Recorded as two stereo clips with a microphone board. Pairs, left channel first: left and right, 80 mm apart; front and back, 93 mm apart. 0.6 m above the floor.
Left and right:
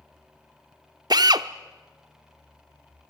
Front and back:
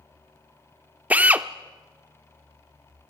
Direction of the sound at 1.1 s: 110° right.